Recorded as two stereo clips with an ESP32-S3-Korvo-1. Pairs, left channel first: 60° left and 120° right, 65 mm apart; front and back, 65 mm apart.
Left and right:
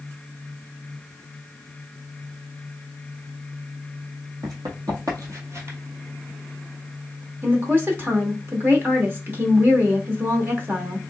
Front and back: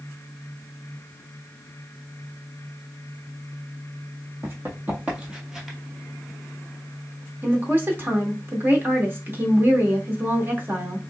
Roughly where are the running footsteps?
Behind right.